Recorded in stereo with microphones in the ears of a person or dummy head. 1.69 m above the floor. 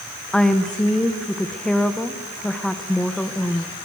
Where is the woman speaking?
5° left (ahead or behind), 1.4 m.